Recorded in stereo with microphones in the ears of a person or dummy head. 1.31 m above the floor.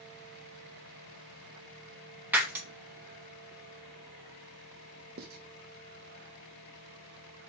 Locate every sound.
2.3 s breaking glass: 15° right (ahead or behind), 0.8 m
5.2 s writing: 50° right (ahead or behind), 0.7 m